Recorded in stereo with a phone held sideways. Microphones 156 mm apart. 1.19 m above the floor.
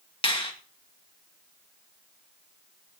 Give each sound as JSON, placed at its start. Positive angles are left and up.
{"t": 0.2, "sound": "a finger snap", "side_deg": 35, "distance_m": 1.7}